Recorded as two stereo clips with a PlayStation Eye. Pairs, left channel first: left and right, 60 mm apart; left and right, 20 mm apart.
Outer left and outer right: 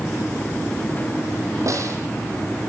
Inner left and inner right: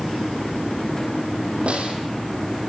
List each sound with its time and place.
1.7 s a snare drum: 65° right (ahead or behind), 5.5 m